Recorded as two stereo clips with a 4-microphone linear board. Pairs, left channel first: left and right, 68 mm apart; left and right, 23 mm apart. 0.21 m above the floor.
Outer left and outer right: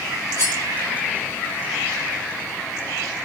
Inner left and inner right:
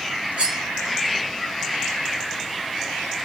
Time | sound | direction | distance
0.4 | cutlery clinking | 65° right (ahead or behind) | 1.7 m